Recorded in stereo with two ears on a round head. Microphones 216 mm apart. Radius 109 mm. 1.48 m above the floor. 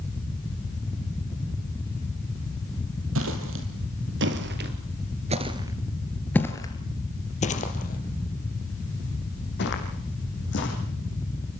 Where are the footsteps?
65° right (ahead or behind), 3.5 m; by 10.7 s 50° left (ahead or behind), 6 m.